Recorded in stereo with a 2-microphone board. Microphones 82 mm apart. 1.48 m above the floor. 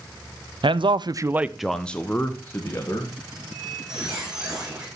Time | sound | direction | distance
0.6 | a man speaking | 80° right | 0.7 m
3.3 | a squeak | 5° right (ahead or behind) | 4.5 m